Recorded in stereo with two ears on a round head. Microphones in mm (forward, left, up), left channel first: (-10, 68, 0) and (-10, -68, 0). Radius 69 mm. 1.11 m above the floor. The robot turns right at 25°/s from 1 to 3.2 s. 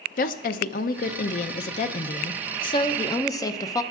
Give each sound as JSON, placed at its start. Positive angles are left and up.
{"t": 0.2, "sound": "a woman speaking", "azimuth_deg": 95, "distance_m": 0.6}